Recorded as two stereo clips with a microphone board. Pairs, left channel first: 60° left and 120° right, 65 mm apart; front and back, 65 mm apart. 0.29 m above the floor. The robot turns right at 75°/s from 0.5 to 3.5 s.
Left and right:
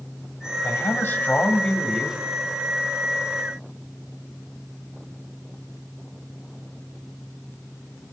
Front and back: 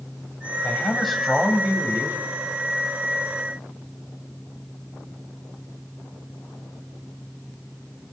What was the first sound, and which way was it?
A man speaking, 55° left.